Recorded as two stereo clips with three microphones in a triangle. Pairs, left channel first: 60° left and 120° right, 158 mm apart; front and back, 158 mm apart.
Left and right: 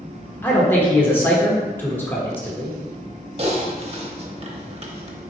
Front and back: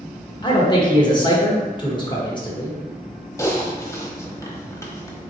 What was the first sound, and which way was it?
A man speaking, straight ahead.